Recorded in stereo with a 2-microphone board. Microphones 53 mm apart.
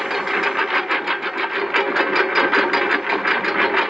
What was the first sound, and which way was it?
A lawn mower, 5° right (ahead or behind).